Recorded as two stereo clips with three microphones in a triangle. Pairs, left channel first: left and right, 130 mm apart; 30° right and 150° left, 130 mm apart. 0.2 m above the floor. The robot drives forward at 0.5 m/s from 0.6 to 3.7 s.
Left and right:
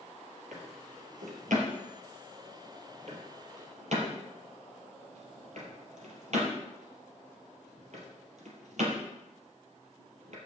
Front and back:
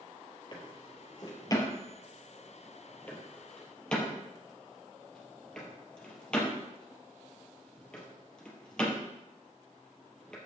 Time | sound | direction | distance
0.5 | a drawer | 85° right | 3 m